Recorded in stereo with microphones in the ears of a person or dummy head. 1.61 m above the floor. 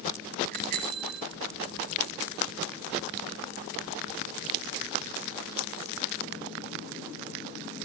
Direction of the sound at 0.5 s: 50° right (ahead or behind).